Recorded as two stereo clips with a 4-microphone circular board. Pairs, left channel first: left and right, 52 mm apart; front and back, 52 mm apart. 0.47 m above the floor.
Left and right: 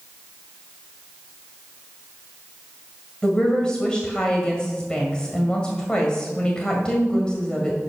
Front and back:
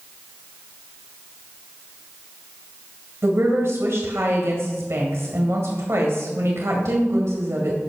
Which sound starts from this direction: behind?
A woman speaking, at 3.2 s.